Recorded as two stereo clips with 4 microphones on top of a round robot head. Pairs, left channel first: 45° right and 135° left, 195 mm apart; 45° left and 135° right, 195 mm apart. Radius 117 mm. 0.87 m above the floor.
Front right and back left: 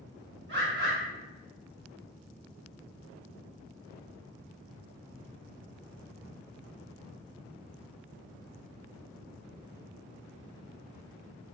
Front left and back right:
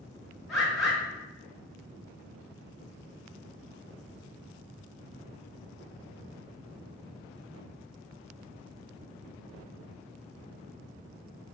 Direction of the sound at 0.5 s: 135° left.